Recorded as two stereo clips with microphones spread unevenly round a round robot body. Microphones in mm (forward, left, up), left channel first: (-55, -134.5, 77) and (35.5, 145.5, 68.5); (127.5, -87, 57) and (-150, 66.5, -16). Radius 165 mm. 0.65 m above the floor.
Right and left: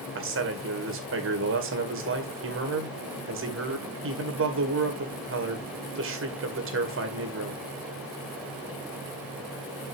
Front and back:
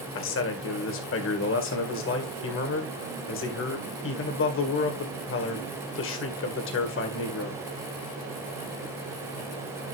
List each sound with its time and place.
0.1 s a man speaking: 25° left, 2 m